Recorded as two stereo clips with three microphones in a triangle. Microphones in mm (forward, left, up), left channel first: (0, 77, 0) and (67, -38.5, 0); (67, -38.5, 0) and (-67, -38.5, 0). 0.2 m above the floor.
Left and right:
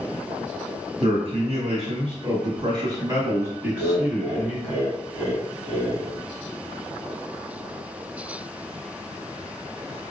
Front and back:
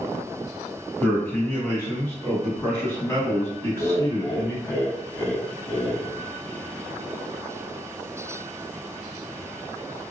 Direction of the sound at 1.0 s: 75° right.